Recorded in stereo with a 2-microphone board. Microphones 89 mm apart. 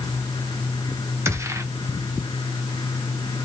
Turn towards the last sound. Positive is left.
turn(degrees=-35)  # may be behind; listen again after turning